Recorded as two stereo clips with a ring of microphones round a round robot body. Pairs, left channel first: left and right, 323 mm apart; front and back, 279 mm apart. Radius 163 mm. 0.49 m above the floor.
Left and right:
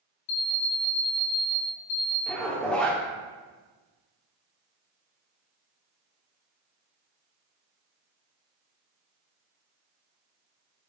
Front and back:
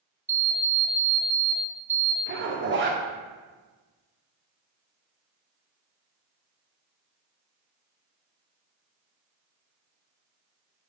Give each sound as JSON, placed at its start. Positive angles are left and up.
{"t": 0.3, "sound": "an alarm clock", "azimuth_deg": 100, "distance_m": 0.7}
{"t": 2.3, "sound": "a zipper", "azimuth_deg": 175, "distance_m": 0.7}